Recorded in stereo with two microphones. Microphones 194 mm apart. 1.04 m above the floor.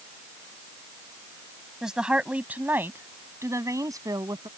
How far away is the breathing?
I don't hear breathing.